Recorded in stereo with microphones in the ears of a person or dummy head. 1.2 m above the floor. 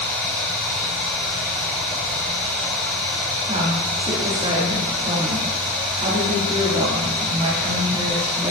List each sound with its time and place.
0.0 s running water: 5° left (ahead or behind), 2.5 m
3.5 s a woman speaking: 25° right (ahead or behind), 2.5 m